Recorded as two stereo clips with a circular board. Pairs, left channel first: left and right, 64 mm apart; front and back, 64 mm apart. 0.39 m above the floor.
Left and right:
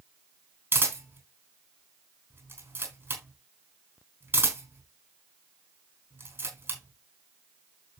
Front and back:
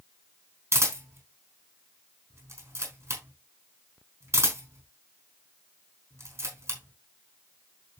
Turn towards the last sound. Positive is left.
turn(degrees=-140)